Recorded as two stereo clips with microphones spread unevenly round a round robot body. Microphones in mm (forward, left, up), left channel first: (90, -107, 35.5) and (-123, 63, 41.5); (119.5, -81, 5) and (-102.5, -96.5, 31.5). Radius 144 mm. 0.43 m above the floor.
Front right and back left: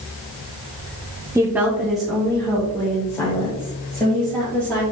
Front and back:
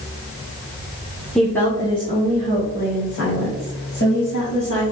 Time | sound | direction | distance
1.4 | a woman speaking | 75° left | 0.8 m